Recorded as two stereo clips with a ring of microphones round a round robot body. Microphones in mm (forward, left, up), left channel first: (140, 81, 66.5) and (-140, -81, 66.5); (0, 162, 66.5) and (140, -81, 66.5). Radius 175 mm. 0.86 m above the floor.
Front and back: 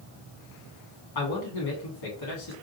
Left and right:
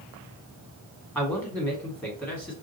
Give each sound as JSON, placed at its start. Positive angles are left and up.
{"t": 1.1, "sound": "a man speaking", "azimuth_deg": 40, "distance_m": 2.0}